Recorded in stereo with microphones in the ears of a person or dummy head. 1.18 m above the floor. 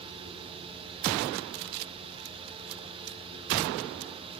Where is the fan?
25° right (ahead or behind), 0.9 m.